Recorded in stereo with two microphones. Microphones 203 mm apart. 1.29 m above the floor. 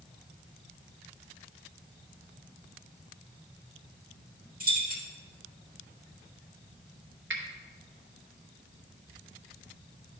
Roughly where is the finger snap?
Right.